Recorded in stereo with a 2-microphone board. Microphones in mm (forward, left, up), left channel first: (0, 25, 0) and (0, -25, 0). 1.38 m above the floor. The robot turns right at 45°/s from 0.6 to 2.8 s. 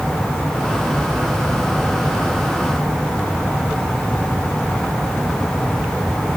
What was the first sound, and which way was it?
Only background noise.